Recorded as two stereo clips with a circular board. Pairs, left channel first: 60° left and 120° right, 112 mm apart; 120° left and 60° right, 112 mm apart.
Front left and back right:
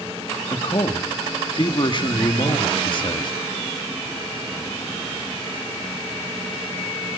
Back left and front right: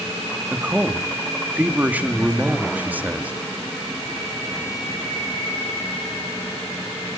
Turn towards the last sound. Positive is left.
turn(degrees=15)